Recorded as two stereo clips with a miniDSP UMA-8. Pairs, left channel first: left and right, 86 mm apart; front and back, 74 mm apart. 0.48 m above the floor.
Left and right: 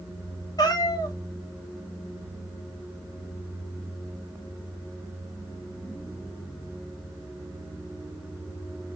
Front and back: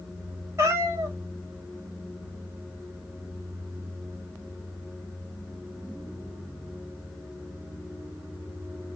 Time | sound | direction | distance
0.6 | a cat meowing | 130° left | 1.0 m